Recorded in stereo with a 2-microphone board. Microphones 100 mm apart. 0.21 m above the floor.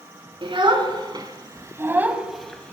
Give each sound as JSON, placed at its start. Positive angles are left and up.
{"t": 0.4, "sound": "a child speaking", "side_deg": -55, "distance_m": 1.6}